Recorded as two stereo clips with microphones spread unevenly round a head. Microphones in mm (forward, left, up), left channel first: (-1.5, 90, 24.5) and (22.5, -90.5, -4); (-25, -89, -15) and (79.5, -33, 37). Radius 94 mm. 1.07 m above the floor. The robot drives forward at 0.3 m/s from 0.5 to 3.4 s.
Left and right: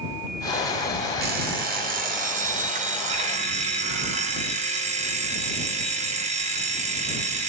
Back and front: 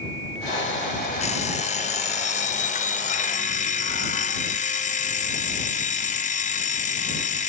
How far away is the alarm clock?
About 1.8 m.